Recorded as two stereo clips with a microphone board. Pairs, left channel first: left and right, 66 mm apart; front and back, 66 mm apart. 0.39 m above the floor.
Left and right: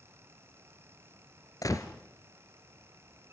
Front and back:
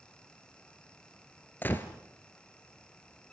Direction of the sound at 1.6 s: 60° left.